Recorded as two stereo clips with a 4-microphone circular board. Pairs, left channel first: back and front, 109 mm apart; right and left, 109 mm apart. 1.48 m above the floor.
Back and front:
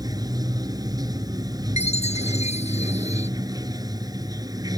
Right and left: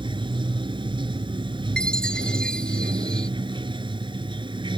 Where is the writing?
No writing in this recording.